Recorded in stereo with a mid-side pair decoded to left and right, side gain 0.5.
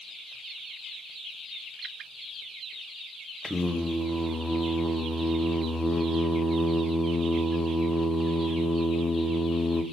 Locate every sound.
3.4 s singing: 10° left, 0.9 m